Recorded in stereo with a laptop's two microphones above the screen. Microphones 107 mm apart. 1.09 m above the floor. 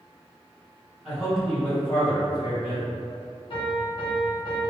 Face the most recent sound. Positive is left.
turn(degrees=50)  # may be behind; listen again after turning